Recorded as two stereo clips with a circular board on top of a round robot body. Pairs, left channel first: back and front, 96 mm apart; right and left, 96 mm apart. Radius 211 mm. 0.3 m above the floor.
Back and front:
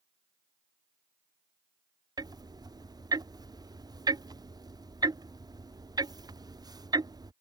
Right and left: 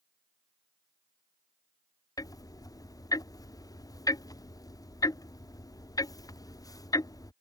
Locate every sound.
2.2 s ticking: 40° right